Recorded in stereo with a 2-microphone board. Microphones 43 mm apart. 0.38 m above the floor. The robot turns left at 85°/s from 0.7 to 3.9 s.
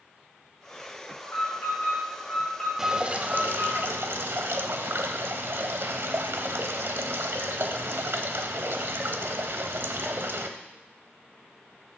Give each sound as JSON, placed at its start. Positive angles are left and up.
{"t": 1.2, "sound": "an alarm", "azimuth_deg": 130, "distance_m": 5.0}
{"t": 2.8, "sound": "dripping", "azimuth_deg": -5, "distance_m": 1.0}